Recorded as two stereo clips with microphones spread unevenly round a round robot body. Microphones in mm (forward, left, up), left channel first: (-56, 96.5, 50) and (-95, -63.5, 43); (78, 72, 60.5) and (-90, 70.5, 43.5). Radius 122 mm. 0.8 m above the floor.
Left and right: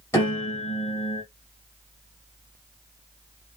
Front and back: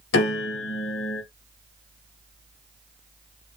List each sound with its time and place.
0.1 s a piano: straight ahead, 3 m